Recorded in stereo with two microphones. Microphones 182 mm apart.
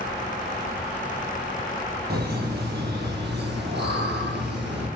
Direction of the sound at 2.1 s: 60° right (ahead or behind).